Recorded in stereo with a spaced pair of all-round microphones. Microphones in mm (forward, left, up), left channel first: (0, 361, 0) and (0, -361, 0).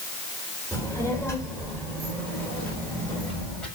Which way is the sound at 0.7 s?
5° left (ahead or behind).